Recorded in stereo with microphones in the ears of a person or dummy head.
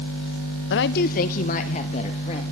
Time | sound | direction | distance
0.7 | a woman speaking | 60° left (ahead or behind) | 0.9 m